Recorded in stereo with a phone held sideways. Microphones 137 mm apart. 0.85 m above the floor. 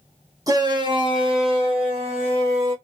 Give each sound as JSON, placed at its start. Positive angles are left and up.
{"t": 0.5, "sound": "a shout", "side_deg": -25, "distance_m": 0.9}